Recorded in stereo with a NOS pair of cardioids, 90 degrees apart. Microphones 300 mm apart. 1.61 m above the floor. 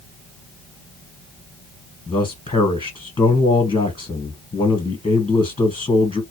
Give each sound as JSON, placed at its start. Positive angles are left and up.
{"t": 2.1, "sound": "a man speaking", "azimuth_deg": 20, "distance_m": 1.2}